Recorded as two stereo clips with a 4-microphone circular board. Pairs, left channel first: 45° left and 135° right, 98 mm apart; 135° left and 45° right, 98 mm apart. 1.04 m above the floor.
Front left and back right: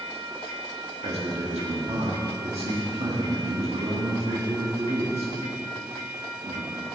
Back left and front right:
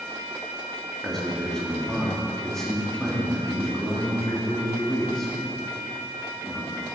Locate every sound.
1.0 s a man speaking: 140° right, 1.8 m